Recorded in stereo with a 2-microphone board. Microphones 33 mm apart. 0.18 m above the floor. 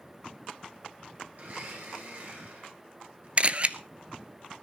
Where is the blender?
55° right (ahead or behind), 9 m.